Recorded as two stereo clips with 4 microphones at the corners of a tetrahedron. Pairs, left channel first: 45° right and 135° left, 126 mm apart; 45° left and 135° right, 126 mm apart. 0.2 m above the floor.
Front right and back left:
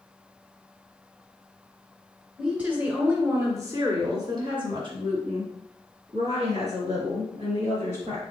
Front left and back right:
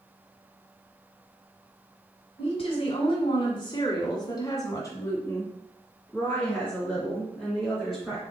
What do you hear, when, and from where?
2.4 s a woman speaking: 55° left, 1.9 m; by 8.2 s 135° left, 3 m